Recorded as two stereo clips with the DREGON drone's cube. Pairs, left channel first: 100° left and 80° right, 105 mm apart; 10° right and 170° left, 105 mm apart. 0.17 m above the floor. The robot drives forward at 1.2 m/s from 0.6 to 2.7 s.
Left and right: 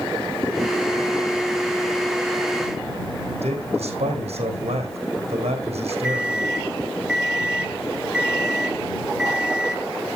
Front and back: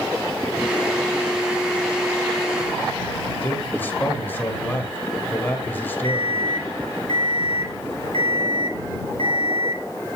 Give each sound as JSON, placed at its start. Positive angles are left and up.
{"t": 3.4, "sound": "a man speaking", "azimuth_deg": -80, "distance_m": 5.5}
{"t": 6.0, "sound": "an alarm clock", "azimuth_deg": -160, "distance_m": 2.5}